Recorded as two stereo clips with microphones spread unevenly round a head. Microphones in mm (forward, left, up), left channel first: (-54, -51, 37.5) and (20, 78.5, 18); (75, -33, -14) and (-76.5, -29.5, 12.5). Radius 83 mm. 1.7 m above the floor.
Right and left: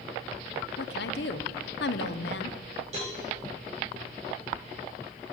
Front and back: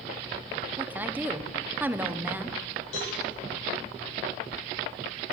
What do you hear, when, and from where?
0.8 s a woman speaking: 105° right, 0.9 m
2.9 s a cowbell: 10° left, 7 m